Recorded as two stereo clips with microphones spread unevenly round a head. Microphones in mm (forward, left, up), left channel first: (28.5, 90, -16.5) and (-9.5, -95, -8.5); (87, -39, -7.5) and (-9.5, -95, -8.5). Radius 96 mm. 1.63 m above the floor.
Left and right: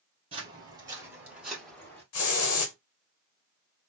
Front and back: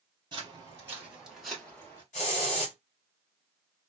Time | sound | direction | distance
0.3 | footsteps | 135° right | 1.9 m
2.1 | a hiss | 80° left | 1.2 m